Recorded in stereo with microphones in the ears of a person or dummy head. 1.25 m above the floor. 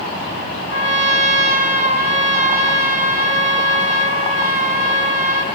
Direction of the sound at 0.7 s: 45° right (ahead or behind).